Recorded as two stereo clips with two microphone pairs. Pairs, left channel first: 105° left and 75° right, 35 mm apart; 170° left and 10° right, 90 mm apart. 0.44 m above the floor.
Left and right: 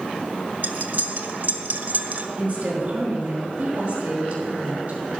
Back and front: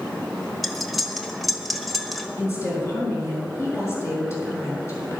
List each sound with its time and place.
0.6 s cutlery clinking: 100° right, 1.2 m
2.4 s a woman speaking: 130° right, 6 m